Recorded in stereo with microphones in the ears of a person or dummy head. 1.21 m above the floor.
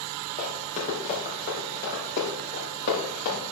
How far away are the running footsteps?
About 4 m.